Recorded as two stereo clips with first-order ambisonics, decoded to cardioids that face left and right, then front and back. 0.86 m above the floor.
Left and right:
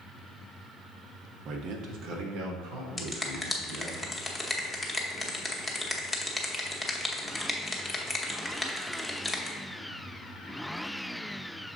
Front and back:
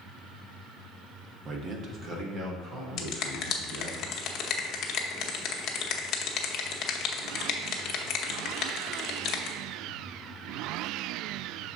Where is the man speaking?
130° right, 0.7 m.